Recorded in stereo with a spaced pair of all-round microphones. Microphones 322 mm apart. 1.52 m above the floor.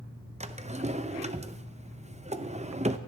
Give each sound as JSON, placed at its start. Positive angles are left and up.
{"t": 0.4, "sound": "a drawer", "side_deg": -20, "distance_m": 0.6}